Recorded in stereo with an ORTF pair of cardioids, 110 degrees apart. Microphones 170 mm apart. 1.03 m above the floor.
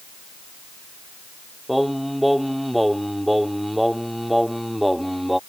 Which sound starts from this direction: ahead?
Singing, at 1.7 s.